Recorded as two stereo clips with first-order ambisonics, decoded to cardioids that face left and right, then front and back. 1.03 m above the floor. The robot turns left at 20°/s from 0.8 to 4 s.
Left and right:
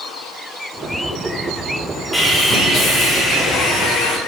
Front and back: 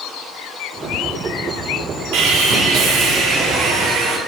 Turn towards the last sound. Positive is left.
turn(degrees=135)